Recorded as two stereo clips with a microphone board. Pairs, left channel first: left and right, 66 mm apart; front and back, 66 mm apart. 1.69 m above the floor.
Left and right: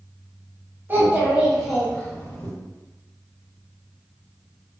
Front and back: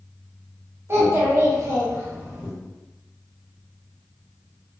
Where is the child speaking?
140° right, 0.9 m; by 2.5 s 130° left, 0.8 m.